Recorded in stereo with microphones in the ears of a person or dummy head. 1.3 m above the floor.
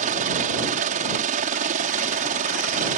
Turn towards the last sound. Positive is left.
turn(degrees=-40)  # may be behind; listen again after turning